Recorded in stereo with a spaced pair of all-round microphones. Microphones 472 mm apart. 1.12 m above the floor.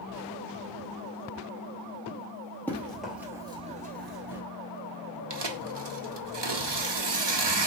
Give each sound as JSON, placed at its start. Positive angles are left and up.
{"t": 2.7, "sound": "running footsteps", "side_deg": 5, "distance_m": 1.9}
{"t": 5.3, "sound": "tearing paper", "side_deg": -60, "distance_m": 0.7}